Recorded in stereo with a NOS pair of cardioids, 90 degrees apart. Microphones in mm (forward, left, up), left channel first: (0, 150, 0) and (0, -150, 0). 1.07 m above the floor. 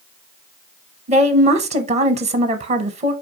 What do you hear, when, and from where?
1.1 s a woman speaking: 25° right, 0.7 m